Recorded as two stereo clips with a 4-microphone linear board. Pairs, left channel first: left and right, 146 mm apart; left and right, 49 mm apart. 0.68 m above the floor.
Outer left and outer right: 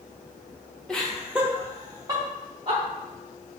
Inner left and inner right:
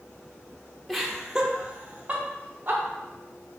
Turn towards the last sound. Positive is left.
turn(degrees=-30)  # may be behind; listen again after turning